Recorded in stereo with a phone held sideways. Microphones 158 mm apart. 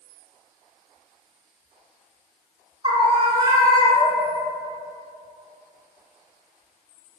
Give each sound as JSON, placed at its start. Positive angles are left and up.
{"t": 2.8, "sound": "a scream", "side_deg": -35, "distance_m": 1.7}